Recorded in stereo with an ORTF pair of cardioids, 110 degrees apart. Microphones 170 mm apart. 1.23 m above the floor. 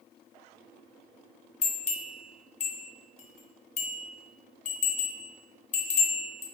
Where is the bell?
40° left, 0.6 m.